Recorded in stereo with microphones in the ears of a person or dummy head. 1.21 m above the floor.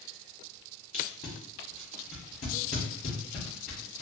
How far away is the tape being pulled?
About 1.0 m.